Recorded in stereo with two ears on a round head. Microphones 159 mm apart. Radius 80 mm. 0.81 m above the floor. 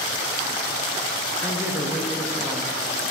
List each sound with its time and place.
1.4 s a man speaking: 5° right (ahead or behind), 0.7 m